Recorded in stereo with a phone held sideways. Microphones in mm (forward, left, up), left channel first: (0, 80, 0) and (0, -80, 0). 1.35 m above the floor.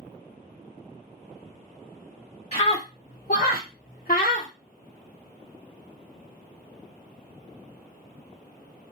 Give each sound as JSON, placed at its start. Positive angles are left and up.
{"t": 2.5, "sound": "a scream", "side_deg": 40, "distance_m": 0.9}